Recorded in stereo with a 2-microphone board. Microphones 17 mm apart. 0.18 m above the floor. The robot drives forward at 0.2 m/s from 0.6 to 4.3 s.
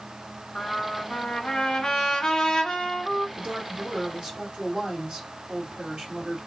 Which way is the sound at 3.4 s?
70° right (ahead or behind).